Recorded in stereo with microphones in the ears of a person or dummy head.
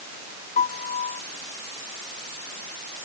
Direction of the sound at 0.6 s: 35° left (ahead or behind).